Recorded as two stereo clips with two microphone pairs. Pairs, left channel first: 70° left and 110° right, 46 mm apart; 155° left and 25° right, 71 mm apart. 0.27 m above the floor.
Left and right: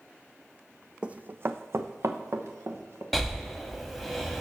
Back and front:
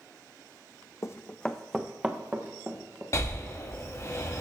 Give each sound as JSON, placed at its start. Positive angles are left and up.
{"t": 1.0, "sound": "running footsteps", "azimuth_deg": -175, "distance_m": 0.5}
{"t": 3.1, "sound": "breathing", "azimuth_deg": 160, "distance_m": 1.1}